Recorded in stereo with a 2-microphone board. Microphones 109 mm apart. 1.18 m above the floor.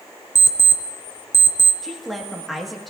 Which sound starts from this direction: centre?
A woman speaking, at 1.8 s.